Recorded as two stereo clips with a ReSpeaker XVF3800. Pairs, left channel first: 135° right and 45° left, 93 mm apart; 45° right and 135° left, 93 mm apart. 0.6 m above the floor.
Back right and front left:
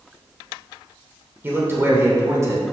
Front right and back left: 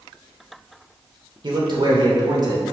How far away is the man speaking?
About 2.5 m.